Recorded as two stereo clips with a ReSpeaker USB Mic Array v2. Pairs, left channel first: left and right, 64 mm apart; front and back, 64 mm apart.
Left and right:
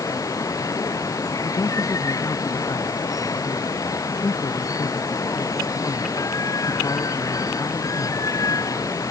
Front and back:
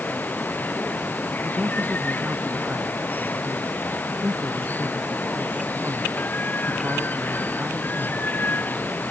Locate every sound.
0.0 s running water: 60° left
1.4 s a man speaking: 120° left